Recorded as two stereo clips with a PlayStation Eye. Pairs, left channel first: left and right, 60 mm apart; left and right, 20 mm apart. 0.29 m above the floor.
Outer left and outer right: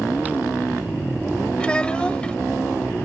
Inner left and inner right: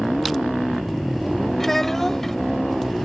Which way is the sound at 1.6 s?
15° left (ahead or behind).